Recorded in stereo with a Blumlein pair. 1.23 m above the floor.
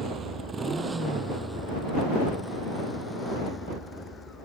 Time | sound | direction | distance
0.0 | a motorcycle | 20° right | ?